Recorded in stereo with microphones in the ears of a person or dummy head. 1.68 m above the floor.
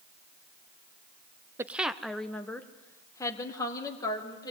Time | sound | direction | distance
1.6 | a woman speaking | 10° right (ahead or behind) | 0.7 m